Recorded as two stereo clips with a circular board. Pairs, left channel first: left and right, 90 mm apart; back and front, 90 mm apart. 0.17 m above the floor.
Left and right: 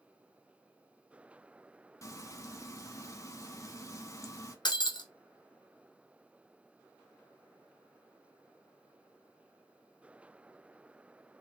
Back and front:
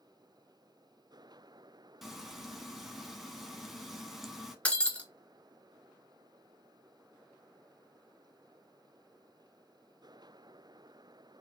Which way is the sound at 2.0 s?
85° left.